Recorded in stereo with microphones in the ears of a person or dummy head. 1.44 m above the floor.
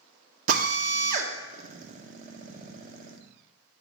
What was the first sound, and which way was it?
A drill, 50° right (ahead or behind).